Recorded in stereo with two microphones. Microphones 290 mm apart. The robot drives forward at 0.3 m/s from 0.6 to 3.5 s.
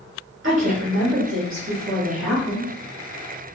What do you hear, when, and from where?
0.4 s a woman speaking: 45° right (ahead or behind), 1.2 m